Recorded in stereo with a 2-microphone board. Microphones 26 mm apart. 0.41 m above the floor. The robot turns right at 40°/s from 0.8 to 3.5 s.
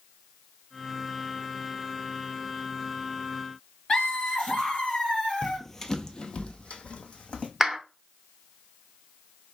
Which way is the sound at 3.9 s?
40° left (ahead or behind).